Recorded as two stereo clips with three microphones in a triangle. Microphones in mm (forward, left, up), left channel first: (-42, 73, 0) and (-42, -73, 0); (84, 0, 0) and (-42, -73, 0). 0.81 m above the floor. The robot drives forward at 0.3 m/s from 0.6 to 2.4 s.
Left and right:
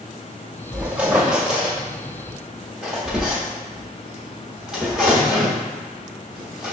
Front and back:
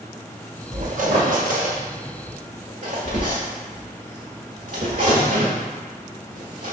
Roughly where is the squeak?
Behind.